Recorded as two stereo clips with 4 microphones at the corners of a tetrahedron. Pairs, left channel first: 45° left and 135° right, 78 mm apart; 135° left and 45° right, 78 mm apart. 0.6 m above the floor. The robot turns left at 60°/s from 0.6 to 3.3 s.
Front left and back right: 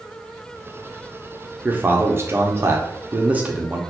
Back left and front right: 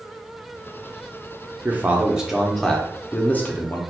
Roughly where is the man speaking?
Right.